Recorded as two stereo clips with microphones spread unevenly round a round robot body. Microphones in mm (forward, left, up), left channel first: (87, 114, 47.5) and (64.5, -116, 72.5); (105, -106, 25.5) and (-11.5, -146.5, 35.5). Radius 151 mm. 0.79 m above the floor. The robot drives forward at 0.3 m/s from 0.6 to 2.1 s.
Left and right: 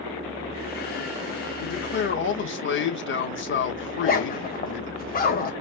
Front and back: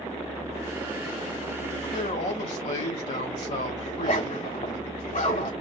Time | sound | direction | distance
1.6 | a man speaking | 50° left | 1.7 m
3.9 | a zipper | 35° left | 1.7 m